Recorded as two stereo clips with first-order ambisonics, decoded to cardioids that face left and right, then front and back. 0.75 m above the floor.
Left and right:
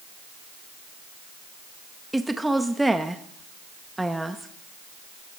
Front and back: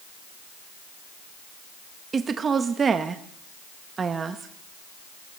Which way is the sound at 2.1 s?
165° right.